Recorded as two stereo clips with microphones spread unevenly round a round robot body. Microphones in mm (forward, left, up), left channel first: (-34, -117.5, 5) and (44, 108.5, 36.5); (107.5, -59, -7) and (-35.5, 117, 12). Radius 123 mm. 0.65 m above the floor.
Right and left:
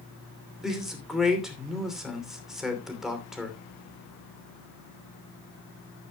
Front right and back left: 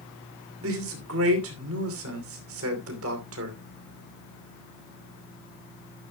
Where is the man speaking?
160° left, 2.5 m.